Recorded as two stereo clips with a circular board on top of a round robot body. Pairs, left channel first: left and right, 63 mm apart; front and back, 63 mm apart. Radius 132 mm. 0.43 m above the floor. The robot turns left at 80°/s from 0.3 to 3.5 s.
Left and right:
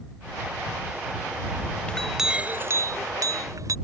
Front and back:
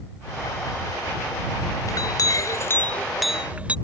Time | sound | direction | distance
1.9 | a clink | 15° left | ?